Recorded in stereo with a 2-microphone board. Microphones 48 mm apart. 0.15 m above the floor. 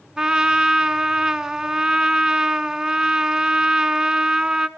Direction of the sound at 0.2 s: 15° right (ahead or behind).